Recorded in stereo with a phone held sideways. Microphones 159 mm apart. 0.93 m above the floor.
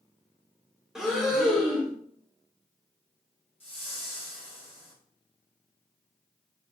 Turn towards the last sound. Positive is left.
turn(degrees=35)  # may be behind; listen again after turning